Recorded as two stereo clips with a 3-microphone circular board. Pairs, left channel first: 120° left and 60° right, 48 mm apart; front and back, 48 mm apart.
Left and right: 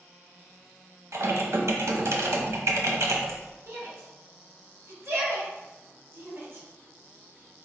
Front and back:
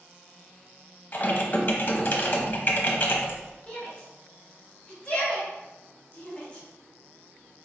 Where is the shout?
60° right, 2 m.